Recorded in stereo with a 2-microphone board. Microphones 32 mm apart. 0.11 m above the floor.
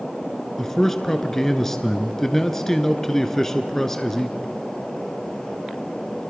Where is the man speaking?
10° left (ahead or behind), 1.2 m.